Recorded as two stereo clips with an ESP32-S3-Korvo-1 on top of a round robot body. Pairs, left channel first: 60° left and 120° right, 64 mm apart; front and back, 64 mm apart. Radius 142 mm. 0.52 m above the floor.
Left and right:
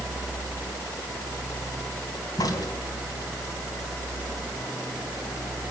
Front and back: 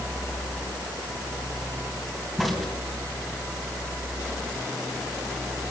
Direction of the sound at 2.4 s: 90° left.